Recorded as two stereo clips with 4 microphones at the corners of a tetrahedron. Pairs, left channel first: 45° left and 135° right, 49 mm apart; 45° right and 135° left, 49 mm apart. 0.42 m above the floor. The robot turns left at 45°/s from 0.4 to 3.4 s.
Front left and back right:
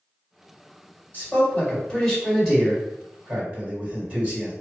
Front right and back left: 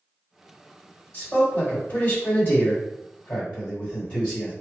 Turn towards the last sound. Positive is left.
turn(degrees=-100)